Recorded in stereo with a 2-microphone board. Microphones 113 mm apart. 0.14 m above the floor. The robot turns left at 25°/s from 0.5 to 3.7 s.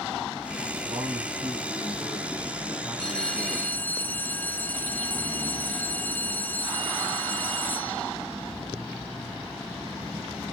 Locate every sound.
0.8 s a man speaking: 120° right, 6 m; by 3.8 s 170° left, 6 m
3.0 s a bell: 5° left (ahead or behind), 1.1 m; by 8.1 s 15° left (ahead or behind), 1.1 m